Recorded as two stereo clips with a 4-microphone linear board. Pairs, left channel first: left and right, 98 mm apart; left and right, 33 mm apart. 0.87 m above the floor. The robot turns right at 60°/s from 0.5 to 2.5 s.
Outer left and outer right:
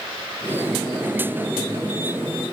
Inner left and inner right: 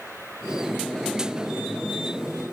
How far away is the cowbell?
I don't hear a cowbell.